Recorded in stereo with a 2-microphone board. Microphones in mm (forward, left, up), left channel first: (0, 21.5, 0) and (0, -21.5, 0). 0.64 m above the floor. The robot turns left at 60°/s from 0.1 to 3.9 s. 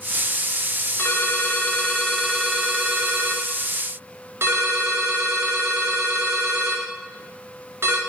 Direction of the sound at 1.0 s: 70° left.